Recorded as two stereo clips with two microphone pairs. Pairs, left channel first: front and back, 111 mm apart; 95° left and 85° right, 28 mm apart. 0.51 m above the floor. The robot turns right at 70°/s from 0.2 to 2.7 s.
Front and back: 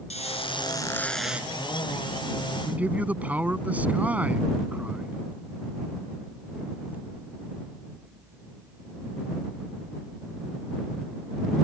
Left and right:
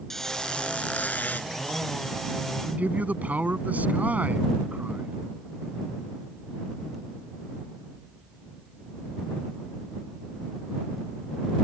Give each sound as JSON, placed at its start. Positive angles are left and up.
{"t": 0.1, "sound": "a squeak", "azimuth_deg": 20}
{"t": 2.6, "sound": "a man speaking", "azimuth_deg": -105}